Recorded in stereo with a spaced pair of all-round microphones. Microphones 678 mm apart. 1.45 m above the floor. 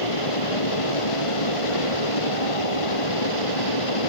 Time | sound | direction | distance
0.0 | a fan | 45° left (ahead or behind) | ?